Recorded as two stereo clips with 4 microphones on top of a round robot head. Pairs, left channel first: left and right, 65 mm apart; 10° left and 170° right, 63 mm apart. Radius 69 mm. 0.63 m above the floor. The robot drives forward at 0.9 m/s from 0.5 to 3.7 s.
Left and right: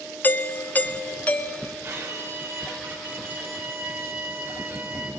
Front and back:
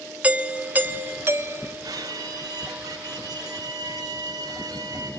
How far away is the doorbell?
About 1.6 m.